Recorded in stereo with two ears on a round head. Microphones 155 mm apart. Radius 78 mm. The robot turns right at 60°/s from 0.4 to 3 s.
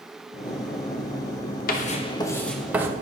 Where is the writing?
125° left, 1.4 m; by 2.9 s 160° right, 1.4 m.